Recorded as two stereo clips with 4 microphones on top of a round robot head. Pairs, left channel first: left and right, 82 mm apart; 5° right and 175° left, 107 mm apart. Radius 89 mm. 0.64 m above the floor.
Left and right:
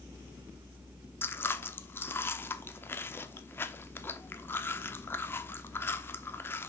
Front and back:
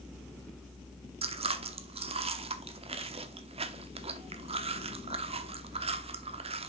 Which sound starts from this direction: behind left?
Chewing, at 1.2 s.